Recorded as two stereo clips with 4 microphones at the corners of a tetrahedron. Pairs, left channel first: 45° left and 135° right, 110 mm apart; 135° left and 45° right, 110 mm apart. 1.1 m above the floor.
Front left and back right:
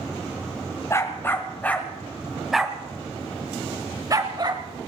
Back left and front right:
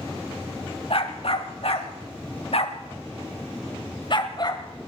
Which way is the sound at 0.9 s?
110° left.